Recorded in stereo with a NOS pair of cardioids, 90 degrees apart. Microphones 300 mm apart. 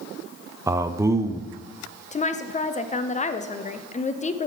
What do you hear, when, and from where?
0.7 s a man speaking: 10° right, 0.7 m
2.1 s a woman speaking: 25° left, 0.8 m